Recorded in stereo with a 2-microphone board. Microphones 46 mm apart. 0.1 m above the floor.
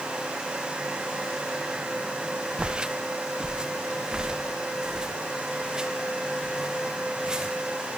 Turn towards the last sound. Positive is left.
turn(degrees=-10)  # may be behind; listen again after turning